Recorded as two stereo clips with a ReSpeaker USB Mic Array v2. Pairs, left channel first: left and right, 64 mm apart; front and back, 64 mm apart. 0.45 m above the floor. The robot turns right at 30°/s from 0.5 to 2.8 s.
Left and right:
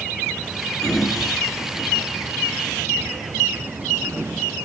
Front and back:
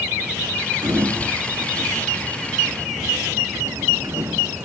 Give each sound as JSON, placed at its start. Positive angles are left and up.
{"t": 0.8, "sound": "a sliding door", "azimuth_deg": 170, "distance_m": 4.0}